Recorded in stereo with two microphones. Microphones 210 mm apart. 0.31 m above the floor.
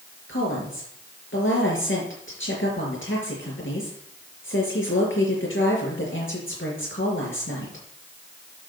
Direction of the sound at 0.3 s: 70° left (ahead or behind).